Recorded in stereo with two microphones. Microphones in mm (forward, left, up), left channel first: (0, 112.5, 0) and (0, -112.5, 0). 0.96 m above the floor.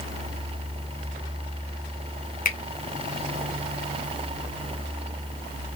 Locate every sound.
2.5 s a finger snap: 40° left (ahead or behind), 0.6 m